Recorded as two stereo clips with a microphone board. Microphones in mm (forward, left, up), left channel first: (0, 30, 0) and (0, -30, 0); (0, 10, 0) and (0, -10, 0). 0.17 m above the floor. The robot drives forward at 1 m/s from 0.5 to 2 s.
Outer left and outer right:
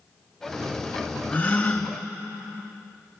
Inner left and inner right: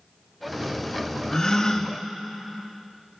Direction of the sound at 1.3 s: 25° left (ahead or behind).